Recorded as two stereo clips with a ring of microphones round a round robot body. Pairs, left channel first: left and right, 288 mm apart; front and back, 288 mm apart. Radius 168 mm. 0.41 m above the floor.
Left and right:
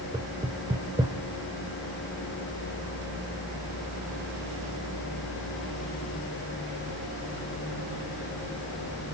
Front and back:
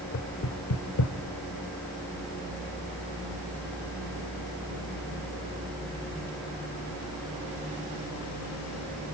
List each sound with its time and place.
0.1 s knocking: 15° right, 1.7 m